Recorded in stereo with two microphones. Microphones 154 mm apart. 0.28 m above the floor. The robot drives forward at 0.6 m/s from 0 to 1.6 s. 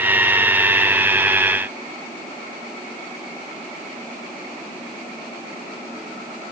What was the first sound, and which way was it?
Only background noise.